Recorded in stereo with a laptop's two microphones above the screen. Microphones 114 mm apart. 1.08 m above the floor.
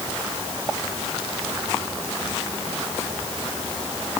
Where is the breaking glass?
No breaking glass in this recording.